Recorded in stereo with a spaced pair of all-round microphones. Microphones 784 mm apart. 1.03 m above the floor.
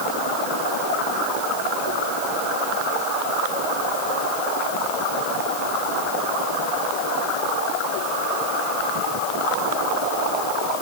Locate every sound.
Only background noise.